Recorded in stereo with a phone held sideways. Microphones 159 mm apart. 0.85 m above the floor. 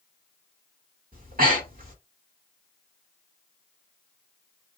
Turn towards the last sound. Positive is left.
turn(degrees=-65)  # may be behind; listen again after turning